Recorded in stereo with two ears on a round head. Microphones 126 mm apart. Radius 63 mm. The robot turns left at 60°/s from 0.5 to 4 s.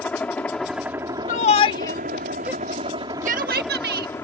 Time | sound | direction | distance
0.0 | a helicopter | 10° left | ?
1.3 | a shout | 60° left (ahead or behind) | ?